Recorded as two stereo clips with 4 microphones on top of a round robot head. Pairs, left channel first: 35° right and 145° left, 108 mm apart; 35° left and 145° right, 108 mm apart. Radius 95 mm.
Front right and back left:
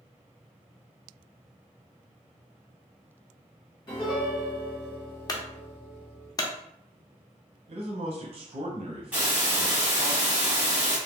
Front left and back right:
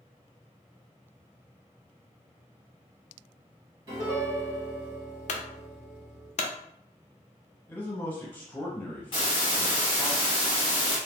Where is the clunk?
25° left, 0.5 m.